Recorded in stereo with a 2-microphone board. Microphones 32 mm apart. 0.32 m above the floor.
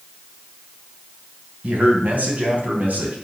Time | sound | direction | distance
1.6 | a man speaking | 50° right (ahead or behind) | 2.5 m